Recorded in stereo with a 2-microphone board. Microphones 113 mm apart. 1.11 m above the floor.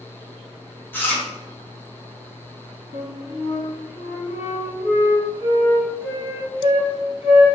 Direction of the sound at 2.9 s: 55° left (ahead or behind).